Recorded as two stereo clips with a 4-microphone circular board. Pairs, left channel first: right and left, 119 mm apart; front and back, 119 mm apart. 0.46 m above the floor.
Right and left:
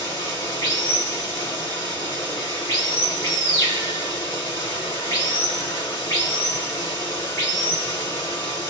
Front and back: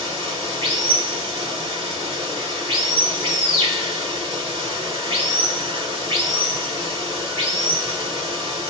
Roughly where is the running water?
Behind right.